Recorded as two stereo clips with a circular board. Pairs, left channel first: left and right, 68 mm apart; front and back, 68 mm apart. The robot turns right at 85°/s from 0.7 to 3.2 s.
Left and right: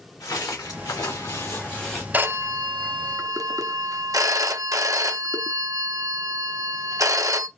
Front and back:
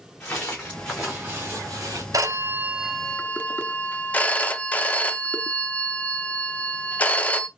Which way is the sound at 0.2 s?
65° left.